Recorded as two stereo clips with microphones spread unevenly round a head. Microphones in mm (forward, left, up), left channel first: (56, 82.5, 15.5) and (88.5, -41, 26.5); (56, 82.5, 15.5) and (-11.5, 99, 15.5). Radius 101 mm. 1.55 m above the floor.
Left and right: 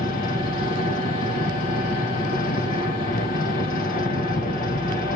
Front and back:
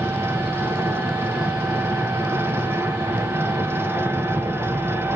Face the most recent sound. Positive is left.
turn(degrees=110)